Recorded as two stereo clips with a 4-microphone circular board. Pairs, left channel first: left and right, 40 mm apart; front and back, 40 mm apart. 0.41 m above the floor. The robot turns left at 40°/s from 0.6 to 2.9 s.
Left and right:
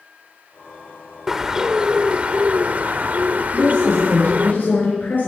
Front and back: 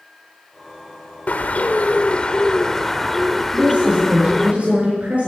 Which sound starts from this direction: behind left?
A woman speaking, at 3.5 s.